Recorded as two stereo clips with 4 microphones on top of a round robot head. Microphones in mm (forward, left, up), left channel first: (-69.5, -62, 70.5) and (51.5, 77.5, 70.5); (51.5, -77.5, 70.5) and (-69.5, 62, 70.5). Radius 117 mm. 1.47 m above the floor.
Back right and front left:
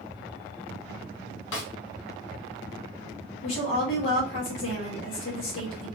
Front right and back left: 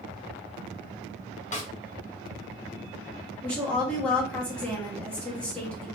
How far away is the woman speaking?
About 1.4 m.